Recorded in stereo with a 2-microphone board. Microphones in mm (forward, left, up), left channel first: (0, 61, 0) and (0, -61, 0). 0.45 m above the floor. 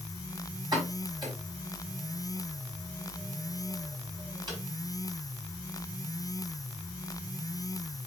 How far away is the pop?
About 4.5 m.